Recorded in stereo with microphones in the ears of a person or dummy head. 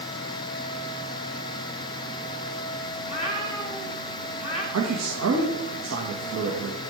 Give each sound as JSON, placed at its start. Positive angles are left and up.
{"t": 3.0, "sound": "a cat meowing", "side_deg": 35, "distance_m": 3.0}
{"t": 4.7, "sound": "a man speaking", "side_deg": -75, "distance_m": 1.6}